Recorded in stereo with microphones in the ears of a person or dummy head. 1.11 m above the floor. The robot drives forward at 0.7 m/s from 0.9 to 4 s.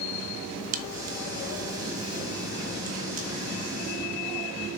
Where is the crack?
45° right (ahead or behind), 1.1 m; by 3.3 s 30° right (ahead or behind), 1.6 m.